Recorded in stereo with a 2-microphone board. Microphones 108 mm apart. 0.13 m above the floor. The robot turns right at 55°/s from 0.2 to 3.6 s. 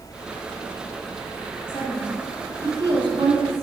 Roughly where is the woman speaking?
Behind left.